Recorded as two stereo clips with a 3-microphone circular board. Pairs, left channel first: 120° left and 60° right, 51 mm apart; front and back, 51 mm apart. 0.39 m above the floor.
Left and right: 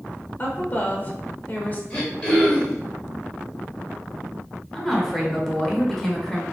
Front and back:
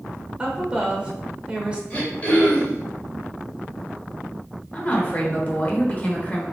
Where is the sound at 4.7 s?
40° left, 1.1 m.